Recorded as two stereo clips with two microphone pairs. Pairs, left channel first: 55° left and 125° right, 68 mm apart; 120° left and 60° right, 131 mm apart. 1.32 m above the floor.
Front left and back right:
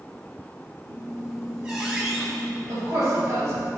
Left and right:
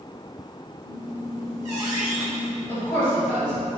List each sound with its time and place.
0.8 s a squeak: 65° right, 1.5 m
2.7 s a woman speaking: 170° right, 1.9 m